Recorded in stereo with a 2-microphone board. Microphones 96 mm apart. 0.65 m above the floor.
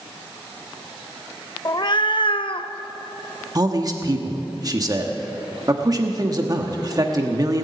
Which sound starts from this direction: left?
A cat meowing, at 1.6 s.